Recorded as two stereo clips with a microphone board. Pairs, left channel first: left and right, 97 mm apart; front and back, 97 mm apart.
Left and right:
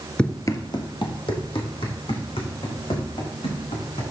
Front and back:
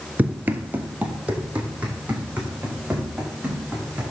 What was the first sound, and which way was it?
Running footsteps, 145° left.